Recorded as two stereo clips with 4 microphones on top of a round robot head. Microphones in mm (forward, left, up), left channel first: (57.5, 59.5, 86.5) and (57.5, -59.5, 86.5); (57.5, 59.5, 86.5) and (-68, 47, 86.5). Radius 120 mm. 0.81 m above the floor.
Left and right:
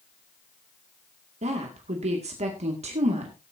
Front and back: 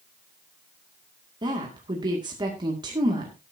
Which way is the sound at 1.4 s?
120° right.